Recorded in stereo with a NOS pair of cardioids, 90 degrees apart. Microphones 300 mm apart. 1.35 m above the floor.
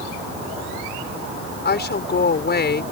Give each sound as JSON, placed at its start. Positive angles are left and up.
{"t": 1.6, "sound": "a woman speaking", "azimuth_deg": 35}